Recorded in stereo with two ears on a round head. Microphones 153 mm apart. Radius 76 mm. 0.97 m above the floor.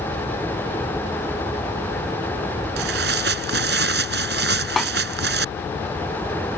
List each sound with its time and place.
2.8 s tearing paper: 70° right (ahead or behind)
4.8 s a snare drum: centre (ahead or behind)